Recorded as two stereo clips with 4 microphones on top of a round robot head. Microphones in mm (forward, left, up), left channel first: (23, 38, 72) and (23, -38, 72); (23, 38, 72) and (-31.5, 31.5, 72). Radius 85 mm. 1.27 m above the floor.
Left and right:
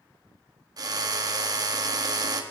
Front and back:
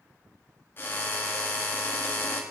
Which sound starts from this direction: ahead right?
A drill, at 0.8 s.